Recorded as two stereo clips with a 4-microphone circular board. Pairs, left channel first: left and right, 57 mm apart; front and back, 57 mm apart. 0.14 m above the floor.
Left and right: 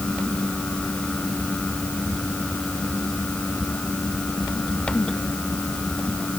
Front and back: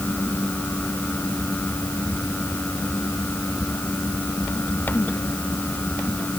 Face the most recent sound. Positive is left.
No sound to turn to.